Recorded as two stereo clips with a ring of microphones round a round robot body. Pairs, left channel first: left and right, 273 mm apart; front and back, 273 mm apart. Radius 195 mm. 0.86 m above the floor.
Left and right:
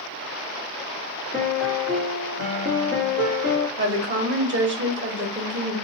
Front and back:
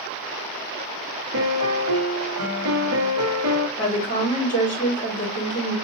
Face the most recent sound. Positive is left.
turn(degrees=-60)